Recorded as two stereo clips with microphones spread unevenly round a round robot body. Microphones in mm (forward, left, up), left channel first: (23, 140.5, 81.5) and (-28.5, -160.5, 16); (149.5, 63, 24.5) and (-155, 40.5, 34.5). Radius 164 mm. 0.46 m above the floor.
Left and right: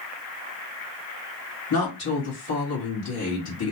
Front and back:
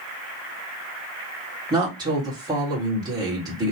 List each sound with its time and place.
1.7 s a woman speaking: 110° left, 1.6 m